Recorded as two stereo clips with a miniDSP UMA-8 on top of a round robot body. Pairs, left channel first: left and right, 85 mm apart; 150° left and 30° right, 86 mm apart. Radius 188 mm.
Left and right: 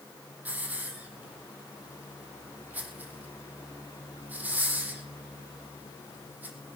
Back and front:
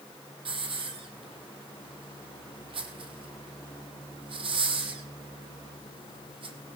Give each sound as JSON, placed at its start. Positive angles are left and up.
{"t": 0.5, "sound": "a hiss", "azimuth_deg": -20, "distance_m": 3.5}